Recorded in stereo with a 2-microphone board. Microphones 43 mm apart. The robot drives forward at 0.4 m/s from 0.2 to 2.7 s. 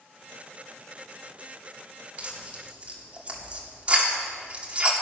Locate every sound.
2.2 s tearing paper: 30° right (ahead or behind), 2.5 m